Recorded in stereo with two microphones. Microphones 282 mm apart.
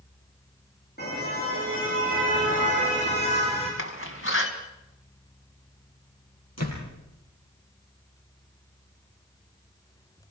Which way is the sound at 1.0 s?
35° left (ahead or behind).